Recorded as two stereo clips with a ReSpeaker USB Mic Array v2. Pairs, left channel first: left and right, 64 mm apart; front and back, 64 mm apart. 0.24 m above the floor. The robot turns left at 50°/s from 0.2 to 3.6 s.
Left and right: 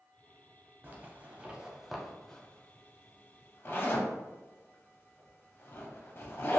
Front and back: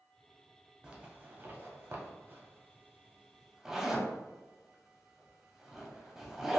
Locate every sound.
0.8 s a zipper: 120° right, 0.6 m; by 6.6 s 105° left, 0.6 m